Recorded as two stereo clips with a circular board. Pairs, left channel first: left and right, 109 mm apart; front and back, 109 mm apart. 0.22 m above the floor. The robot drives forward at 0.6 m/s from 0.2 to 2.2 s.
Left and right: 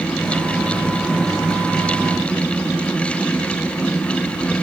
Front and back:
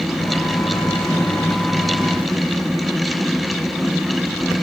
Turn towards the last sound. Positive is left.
No sound to turn to.